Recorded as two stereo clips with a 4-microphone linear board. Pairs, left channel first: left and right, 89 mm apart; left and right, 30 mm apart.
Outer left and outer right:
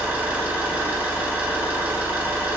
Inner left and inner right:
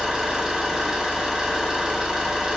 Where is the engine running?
20° right (ahead or behind), 0.9 m.